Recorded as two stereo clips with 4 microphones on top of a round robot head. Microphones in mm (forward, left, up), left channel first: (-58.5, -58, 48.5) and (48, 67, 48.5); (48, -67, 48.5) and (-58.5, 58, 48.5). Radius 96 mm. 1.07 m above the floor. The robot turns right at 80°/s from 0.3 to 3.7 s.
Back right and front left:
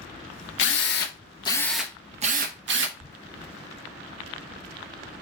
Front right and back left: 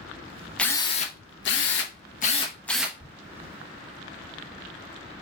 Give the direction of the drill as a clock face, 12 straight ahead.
4 o'clock.